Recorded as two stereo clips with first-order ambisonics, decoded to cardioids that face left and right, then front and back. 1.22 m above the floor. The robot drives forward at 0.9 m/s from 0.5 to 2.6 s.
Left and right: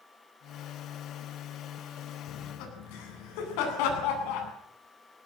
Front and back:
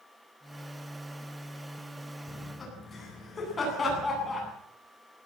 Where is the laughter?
75° left, 9 m.